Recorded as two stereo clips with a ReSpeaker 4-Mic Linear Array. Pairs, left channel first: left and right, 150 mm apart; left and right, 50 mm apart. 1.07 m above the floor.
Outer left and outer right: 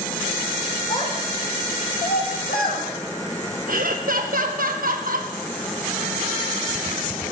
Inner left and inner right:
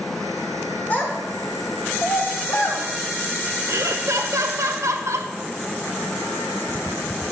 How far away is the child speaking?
About 2.0 m.